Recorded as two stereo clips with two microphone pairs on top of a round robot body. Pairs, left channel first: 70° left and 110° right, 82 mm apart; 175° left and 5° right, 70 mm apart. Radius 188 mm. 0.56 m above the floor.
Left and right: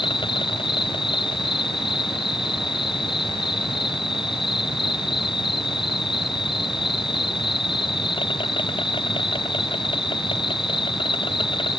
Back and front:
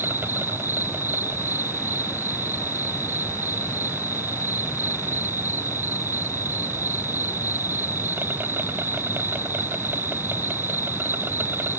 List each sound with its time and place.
0.0 s an insect: 55° left